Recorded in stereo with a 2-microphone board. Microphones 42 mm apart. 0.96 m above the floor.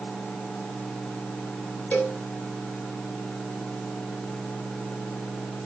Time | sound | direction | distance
1.9 | a cowbell | 45° left (ahead or behind) | 4.5 m